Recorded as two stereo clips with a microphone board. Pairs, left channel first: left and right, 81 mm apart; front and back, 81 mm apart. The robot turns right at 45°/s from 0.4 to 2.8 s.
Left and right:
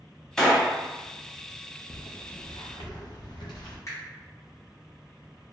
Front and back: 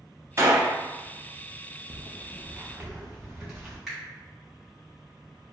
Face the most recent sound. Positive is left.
turn(degrees=90)